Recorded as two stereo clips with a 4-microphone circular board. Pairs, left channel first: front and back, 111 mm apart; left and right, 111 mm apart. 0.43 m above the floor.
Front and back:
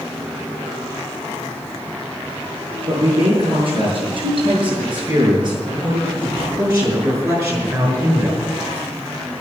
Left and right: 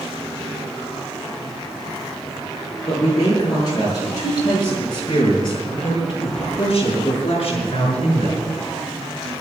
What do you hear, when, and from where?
2.9 s a man speaking: 145° left, 7.5 m; by 8.5 s 110° left, 5 m